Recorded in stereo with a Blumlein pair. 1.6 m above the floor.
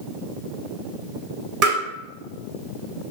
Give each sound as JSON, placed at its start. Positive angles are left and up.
{"t": 1.6, "sound": "tapping", "azimuth_deg": -40, "distance_m": 1.6}